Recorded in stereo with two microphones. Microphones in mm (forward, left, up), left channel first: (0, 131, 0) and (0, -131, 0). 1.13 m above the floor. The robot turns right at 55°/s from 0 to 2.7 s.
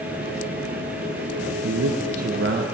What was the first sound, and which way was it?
A man speaking, 100° right.